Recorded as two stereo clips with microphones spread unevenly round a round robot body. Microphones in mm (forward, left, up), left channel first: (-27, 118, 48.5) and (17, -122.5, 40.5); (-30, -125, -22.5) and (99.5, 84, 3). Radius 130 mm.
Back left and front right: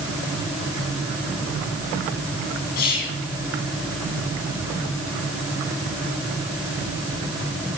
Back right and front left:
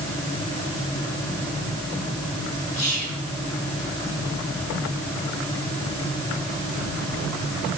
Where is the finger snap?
I don't hear a finger snap.